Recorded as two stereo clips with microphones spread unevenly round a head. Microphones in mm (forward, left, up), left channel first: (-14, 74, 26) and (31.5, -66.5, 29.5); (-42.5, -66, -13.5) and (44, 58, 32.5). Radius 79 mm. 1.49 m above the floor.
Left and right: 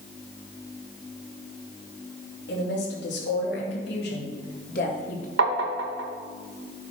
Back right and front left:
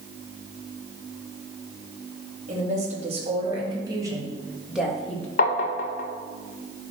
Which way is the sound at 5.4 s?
80° right.